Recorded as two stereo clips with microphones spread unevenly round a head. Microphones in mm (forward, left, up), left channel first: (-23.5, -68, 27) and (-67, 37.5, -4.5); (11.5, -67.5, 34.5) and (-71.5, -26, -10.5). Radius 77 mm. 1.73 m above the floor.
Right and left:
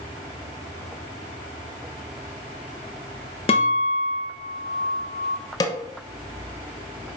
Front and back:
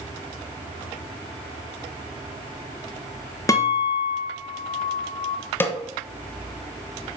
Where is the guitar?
50° right, 1.3 m.